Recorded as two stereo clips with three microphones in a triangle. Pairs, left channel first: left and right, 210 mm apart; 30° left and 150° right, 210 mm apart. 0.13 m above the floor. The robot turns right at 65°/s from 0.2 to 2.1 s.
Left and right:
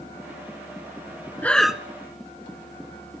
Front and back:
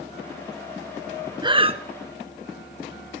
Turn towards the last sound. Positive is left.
turn(degrees=-150)